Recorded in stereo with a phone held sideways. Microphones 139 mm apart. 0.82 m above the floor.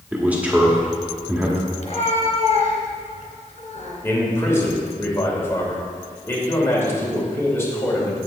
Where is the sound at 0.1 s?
10° right (ahead or behind), 1.8 m.